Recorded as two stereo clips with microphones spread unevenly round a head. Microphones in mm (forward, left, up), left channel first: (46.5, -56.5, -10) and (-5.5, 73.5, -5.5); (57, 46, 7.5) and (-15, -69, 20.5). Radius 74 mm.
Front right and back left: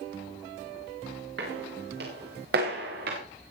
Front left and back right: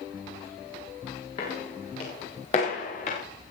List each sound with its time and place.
1.4 s footsteps: 115° left, 8 m; by 3.2 s 105° left, 6.5 m